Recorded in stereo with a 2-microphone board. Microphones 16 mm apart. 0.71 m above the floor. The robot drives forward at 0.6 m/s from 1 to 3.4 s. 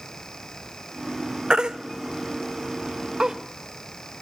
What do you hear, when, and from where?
1.5 s a baby crying: 65° right (ahead or behind), 0.9 m; by 3.4 s 50° right (ahead or behind), 1.1 m